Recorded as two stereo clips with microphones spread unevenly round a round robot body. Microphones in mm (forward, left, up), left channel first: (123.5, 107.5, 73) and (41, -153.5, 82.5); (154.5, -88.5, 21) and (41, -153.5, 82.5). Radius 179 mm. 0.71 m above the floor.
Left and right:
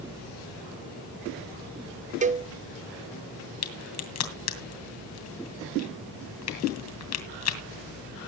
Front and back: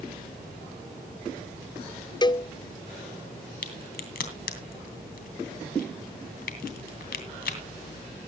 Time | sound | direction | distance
2.2 | a cowbell | 40° right | 0.5 m
3.6 | a crack | 40° left | 2.5 m